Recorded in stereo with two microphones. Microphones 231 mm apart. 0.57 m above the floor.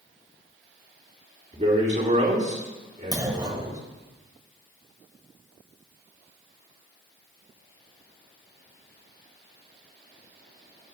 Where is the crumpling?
I don't hear crumpling.